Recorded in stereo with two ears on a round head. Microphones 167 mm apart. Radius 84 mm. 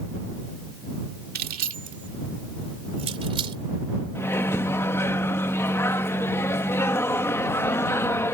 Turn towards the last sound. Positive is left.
turn(degrees=15)  # may be behind; listen again after turning